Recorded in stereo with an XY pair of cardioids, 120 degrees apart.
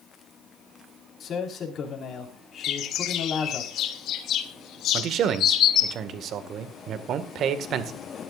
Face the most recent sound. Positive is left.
turn(degrees=-55)